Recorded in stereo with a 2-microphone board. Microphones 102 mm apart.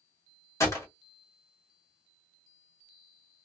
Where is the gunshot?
30° left (ahead or behind), 1.4 m.